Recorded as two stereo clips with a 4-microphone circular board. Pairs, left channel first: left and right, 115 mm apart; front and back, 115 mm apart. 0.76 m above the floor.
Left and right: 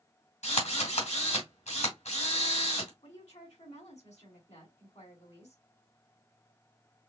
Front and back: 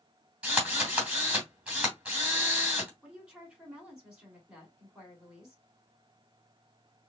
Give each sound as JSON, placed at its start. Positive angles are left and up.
{"t": 0.4, "sound": "a drill", "azimuth_deg": 100, "distance_m": 2.5}
{"t": 3.0, "sound": "a woman speaking", "azimuth_deg": 95, "distance_m": 3.0}